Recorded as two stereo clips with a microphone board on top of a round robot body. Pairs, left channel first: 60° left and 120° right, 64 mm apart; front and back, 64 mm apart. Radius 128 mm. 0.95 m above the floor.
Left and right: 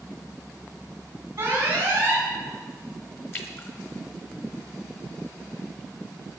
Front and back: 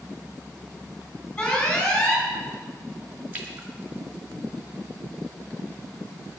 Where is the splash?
115° left, 1.8 m.